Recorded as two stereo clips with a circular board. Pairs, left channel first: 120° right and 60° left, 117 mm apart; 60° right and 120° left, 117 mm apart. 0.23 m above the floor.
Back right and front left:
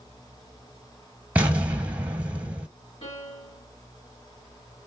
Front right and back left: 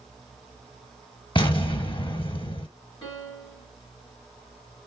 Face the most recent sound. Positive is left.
turn(degrees=-105)